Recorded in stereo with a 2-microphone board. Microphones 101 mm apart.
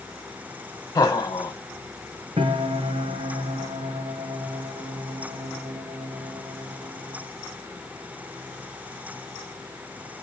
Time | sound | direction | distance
0.9 | laughter | 35° left (ahead or behind) | 2.5 m
2.4 | a piano | 80° right | 2.5 m